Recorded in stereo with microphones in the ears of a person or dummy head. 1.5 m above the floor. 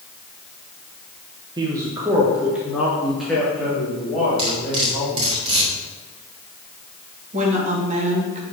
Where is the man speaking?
25° right (ahead or behind), 1.3 m; by 5.4 s 10° left (ahead or behind), 4 m.